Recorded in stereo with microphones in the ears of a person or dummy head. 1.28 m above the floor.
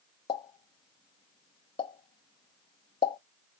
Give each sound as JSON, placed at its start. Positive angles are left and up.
{"t": 0.3, "sound": "a pop", "side_deg": 25, "distance_m": 0.7}